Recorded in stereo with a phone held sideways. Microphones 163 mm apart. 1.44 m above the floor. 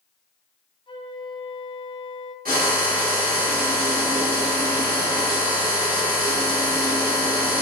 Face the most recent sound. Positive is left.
turn(degrees=-65)  # may be behind; listen again after turning